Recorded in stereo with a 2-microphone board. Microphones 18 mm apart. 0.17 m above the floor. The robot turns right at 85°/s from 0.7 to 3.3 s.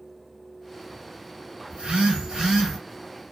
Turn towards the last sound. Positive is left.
turn(degrees=25)